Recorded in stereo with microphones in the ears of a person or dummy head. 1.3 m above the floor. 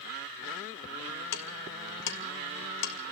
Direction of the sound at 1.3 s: 65° left (ahead or behind).